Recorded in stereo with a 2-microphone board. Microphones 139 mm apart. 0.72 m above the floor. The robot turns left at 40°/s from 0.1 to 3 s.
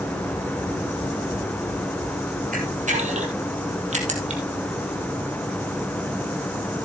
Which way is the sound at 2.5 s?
75° right (ahead or behind).